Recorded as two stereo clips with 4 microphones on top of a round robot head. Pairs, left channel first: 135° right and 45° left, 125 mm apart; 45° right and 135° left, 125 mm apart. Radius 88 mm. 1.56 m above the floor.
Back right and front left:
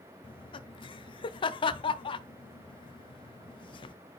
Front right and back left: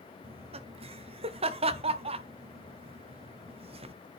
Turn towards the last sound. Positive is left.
turn(degrees=175)